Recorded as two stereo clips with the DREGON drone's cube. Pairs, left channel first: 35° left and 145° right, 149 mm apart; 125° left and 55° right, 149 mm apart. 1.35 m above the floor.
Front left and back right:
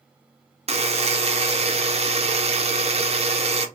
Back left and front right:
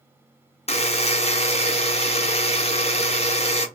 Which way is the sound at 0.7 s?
170° left.